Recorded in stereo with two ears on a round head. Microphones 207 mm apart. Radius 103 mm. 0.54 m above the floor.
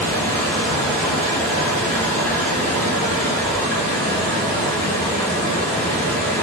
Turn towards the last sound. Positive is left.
turn(degrees=5)  # may be behind; listen again after turning